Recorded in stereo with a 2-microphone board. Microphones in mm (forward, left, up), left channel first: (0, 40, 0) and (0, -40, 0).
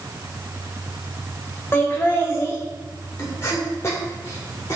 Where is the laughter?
30° left (ahead or behind), 2.5 m; by 4.8 s 40° left (ahead or behind), 1.7 m.